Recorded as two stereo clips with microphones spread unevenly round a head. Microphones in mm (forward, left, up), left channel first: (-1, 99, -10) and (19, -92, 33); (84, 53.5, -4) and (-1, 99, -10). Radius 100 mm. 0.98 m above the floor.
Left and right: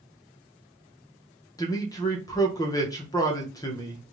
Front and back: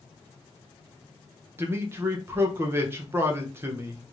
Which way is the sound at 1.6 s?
125° left.